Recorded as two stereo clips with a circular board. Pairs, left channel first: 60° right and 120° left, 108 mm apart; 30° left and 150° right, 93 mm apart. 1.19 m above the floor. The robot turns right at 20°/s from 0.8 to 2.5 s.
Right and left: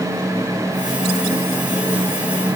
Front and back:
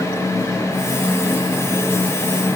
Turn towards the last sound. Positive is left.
No sound to turn to.